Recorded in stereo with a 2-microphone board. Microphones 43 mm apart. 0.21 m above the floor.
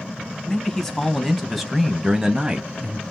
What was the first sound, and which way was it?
A man speaking, 15° left (ahead or behind).